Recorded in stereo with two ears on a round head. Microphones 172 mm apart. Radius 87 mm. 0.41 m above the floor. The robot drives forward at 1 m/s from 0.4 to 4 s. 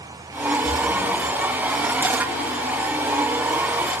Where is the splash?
5° left (ahead or behind), 6 m.